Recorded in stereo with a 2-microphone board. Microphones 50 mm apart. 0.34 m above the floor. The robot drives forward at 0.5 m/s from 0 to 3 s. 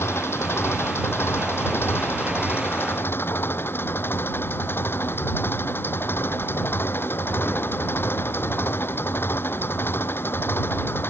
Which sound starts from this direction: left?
An engine running, at 0.0 s.